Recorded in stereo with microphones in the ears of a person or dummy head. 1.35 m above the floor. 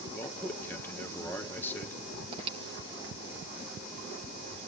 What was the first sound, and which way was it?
A man speaking, 10° left (ahead or behind).